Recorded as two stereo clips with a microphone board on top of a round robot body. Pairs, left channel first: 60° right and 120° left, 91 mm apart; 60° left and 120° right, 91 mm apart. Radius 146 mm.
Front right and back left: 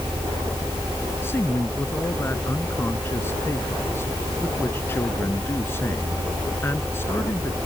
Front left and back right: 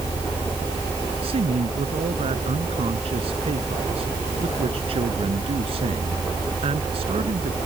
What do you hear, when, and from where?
1.2 s a man speaking: 125° right